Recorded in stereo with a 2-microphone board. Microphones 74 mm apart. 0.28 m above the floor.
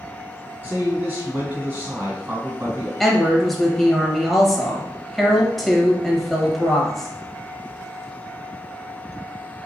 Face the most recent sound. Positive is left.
turn(degrees=0)  # may be behind; listen again after turning